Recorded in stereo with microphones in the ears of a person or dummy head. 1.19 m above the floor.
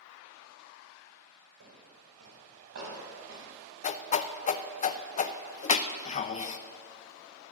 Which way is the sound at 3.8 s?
40° left (ahead or behind).